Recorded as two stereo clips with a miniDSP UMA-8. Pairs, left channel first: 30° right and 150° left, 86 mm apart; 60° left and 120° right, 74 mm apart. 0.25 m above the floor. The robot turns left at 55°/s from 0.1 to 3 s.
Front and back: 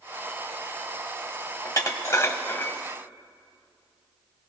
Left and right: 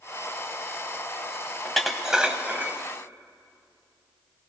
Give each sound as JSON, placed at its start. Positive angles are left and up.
{"t": 1.6, "sound": "dishes clattering", "azimuth_deg": -20, "distance_m": 0.9}